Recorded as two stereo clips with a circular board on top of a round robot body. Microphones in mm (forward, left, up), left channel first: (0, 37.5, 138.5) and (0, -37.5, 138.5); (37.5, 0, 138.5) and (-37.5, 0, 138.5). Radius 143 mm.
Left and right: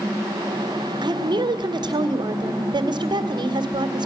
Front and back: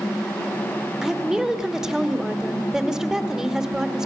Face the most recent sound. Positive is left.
turn(degrees=-100)